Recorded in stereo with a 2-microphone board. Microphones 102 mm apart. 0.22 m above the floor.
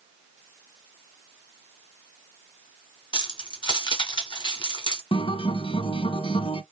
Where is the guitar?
60° left (ahead or behind), 0.5 m.